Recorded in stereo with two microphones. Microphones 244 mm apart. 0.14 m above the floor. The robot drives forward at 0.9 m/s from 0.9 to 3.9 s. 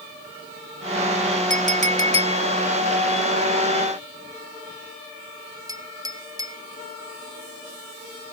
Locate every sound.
1.5 s a clink: 35° right (ahead or behind); by 6.6 s 15° right (ahead or behind)